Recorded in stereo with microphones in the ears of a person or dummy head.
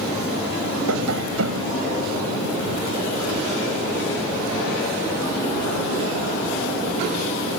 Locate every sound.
0.9 s tapping: 85° right